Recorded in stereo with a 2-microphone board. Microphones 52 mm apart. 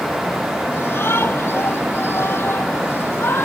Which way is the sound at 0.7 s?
50° left (ahead or behind).